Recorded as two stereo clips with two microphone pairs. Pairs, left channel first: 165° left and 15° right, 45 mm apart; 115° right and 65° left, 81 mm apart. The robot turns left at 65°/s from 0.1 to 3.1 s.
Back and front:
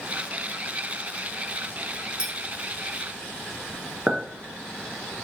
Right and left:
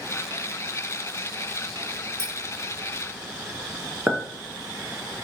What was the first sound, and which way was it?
A clink, 40° left.